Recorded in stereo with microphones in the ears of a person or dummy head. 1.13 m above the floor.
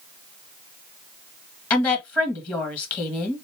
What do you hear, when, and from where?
1.7 s a woman speaking: 25° left (ahead or behind), 1.4 m